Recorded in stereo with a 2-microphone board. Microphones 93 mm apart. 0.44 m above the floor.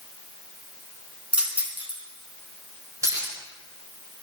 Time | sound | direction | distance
1.3 | keys jangling | 15° right (ahead or behind) | 3.5 m